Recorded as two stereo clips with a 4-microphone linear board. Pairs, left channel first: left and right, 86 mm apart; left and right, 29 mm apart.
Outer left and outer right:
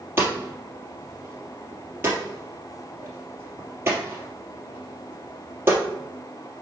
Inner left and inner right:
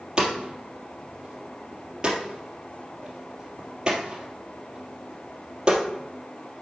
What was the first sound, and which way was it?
Hammering, 25° right (ahead or behind).